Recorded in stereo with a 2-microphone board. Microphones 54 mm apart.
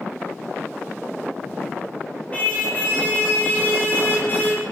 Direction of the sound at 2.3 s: 25° left (ahead or behind).